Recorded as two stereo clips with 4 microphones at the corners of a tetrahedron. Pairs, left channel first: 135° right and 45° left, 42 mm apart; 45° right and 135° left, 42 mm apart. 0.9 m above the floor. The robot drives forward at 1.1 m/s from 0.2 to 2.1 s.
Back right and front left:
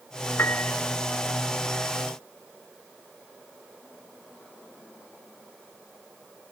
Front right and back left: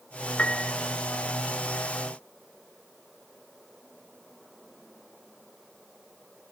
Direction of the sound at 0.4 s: 105° right.